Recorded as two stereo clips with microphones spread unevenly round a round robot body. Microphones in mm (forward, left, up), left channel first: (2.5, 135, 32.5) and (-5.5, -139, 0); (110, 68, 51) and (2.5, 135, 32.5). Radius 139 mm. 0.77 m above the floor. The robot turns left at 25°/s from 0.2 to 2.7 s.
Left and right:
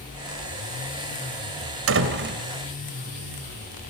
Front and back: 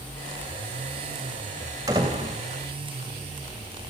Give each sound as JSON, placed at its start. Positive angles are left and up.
{"t": 1.9, "sound": "a door slam", "azimuth_deg": -135, "distance_m": 2.0}